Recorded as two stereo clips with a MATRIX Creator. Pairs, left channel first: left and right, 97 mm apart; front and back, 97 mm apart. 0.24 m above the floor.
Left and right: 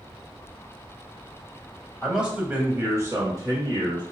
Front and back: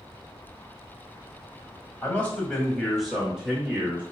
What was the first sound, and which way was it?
A man speaking, 5° right.